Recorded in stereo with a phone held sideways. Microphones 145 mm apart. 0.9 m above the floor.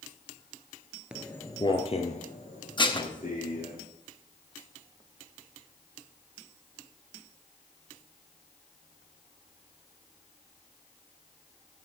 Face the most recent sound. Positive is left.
turn(degrees=30)  # may be behind; listen again after turning